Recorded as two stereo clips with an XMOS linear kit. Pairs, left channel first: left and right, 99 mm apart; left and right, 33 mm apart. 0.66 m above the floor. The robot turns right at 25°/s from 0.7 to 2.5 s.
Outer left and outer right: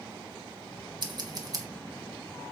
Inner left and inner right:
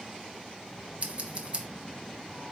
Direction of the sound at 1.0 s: 50° right (ahead or behind).